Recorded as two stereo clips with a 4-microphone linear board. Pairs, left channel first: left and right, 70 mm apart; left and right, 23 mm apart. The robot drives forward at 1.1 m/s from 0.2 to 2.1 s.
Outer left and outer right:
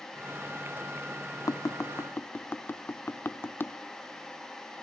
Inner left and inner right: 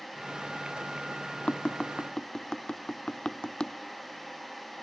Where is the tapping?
55° left (ahead or behind), 0.7 m; by 3.7 s 30° left (ahead or behind), 1.1 m.